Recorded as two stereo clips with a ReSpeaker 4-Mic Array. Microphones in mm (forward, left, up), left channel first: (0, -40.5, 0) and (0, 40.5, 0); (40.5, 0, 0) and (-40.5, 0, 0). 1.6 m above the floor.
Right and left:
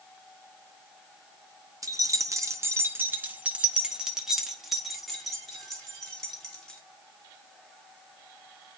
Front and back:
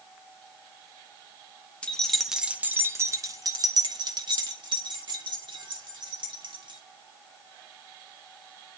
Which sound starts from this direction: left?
Keys jangling, at 1.8 s.